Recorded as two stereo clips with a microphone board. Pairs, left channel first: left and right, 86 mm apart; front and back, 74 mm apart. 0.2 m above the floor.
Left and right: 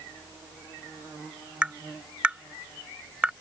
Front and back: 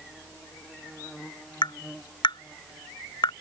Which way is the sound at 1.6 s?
15° right.